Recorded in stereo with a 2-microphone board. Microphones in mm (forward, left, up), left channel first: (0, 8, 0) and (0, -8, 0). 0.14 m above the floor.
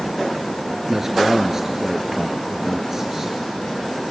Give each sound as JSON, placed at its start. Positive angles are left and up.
{"t": 0.9, "sound": "a man speaking", "side_deg": -20, "distance_m": 1.8}